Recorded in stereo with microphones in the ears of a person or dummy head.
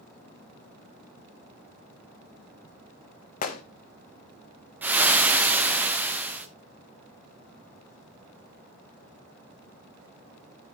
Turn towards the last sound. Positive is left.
turn(degrees=-10)  # may be behind; listen again after turning